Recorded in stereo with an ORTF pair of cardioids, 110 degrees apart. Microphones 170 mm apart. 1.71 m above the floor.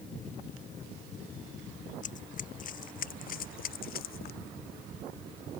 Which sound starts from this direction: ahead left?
Running footsteps, at 2.0 s.